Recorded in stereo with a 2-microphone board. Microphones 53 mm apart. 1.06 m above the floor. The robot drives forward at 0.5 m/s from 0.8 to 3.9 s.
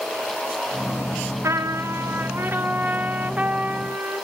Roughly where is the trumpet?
Right.